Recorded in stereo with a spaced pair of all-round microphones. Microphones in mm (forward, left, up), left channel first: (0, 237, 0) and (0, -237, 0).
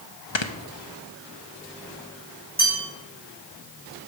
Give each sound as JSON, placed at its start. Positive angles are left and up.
{"t": 0.3, "sound": "snoring", "side_deg": 75, "distance_m": 0.9}
{"t": 2.6, "sound": "a bell", "side_deg": -20, "distance_m": 6.5}